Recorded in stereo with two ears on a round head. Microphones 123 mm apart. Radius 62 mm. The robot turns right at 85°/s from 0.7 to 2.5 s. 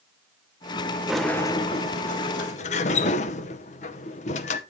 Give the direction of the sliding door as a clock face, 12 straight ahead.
12 o'clock.